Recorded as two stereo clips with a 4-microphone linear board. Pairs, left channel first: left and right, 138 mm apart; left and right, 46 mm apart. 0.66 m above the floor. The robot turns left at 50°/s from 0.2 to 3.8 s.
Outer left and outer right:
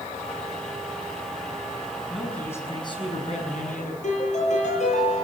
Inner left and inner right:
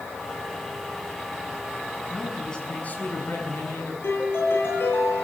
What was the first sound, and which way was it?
A man speaking, straight behind.